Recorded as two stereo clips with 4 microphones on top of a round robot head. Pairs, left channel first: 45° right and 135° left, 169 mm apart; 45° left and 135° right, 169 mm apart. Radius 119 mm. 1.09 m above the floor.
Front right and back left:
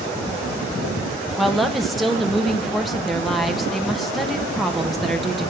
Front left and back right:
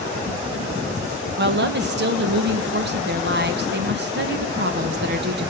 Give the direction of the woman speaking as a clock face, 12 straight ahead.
5 o'clock.